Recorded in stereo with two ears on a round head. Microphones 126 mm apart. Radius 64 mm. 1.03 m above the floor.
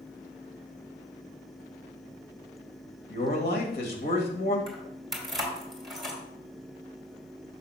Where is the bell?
I don't hear a bell.